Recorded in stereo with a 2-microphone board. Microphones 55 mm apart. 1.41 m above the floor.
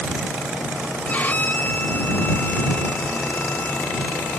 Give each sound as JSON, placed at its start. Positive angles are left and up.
{"t": 1.1, "sound": "a violin", "side_deg": 35}